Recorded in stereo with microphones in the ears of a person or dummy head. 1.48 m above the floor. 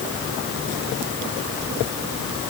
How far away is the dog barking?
No dog barking in this recording.